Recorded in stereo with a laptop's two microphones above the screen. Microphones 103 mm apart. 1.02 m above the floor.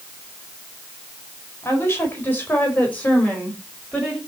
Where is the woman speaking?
25° left (ahead or behind), 5 m; by 4.2 s 5° left (ahead or behind), 5 m.